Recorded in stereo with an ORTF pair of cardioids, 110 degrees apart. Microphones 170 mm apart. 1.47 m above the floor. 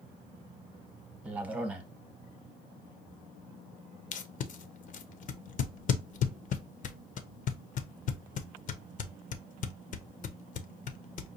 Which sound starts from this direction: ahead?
A man speaking, at 1.2 s.